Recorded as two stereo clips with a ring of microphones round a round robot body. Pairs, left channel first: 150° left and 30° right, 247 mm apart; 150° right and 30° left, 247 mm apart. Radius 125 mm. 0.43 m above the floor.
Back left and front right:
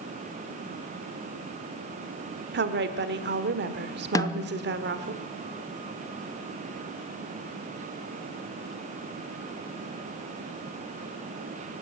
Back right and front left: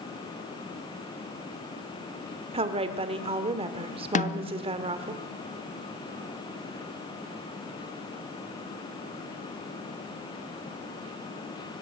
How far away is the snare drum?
About 0.7 m.